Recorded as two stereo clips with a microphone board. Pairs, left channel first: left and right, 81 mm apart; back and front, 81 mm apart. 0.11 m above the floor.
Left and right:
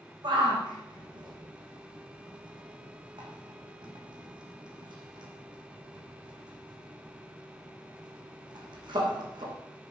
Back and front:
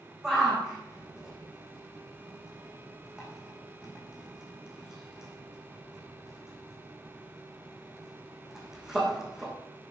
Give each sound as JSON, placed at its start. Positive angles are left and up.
{"t": 0.2, "sound": "a shout", "azimuth_deg": -80, "distance_m": 5.0}